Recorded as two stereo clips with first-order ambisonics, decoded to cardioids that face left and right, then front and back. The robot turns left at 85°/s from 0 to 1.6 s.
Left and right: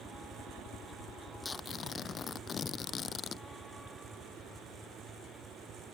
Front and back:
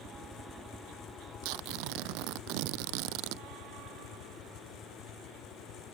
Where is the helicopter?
160° right; by 6.0 s 20° right.